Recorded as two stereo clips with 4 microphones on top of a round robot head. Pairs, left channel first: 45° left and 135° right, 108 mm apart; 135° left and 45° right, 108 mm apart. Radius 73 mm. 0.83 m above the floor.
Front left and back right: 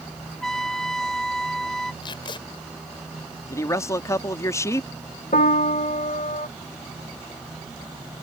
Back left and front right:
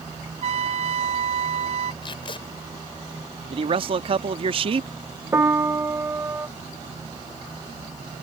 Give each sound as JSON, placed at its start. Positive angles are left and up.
{"t": 0.4, "sound": "a trumpet", "azimuth_deg": -40}
{"t": 2.0, "sound": "tape being pulled", "azimuth_deg": 90}
{"t": 3.5, "sound": "a man speaking", "azimuth_deg": -15}
{"t": 5.3, "sound": "a piano", "azimuth_deg": 25}